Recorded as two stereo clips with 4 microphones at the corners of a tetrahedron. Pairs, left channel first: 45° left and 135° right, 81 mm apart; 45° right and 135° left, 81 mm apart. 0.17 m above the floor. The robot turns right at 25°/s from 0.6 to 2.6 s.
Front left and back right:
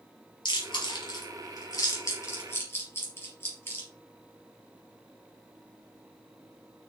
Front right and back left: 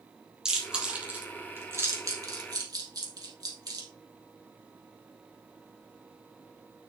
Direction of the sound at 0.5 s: 50° left.